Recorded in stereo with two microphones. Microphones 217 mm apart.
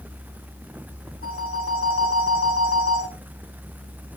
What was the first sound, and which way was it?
A phone ringing, 75° left (ahead or behind).